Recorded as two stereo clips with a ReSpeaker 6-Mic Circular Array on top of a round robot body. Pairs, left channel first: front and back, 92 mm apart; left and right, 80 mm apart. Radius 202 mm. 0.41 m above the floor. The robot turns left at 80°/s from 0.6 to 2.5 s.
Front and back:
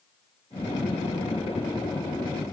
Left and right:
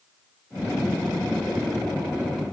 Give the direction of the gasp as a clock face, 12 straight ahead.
No gasp in this recording.